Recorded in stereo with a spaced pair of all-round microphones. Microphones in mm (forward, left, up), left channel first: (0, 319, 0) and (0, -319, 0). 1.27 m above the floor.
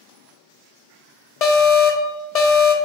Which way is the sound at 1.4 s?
70° left (ahead or behind).